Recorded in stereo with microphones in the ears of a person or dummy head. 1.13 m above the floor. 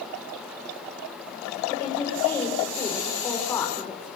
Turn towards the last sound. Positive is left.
turn(degrees=15)  # may be behind; listen again after turning